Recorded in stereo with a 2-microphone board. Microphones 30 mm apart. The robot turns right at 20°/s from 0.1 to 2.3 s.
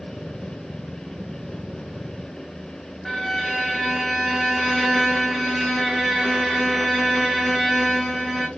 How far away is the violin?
About 1.2 m.